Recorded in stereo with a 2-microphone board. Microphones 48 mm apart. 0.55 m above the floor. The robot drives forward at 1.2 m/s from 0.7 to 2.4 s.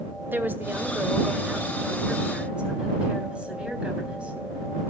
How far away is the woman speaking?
About 1.6 m.